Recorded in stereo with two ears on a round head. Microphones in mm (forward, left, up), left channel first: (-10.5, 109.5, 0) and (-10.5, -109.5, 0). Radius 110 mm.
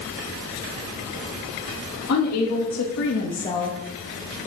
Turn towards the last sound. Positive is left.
turn(degrees=0)  # may be behind; listen again after turning